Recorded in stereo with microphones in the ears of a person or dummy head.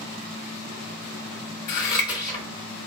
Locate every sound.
1.7 s scissors: 25° left (ahead or behind), 1.8 m